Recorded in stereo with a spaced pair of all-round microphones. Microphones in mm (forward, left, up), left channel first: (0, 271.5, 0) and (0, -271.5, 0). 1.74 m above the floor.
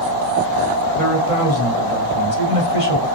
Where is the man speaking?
75° left (ahead or behind), 1.4 m.